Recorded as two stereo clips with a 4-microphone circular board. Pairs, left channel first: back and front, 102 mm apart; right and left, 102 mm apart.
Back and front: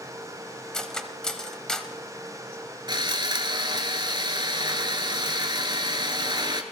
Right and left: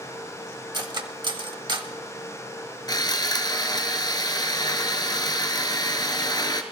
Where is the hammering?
I don't hear hammering.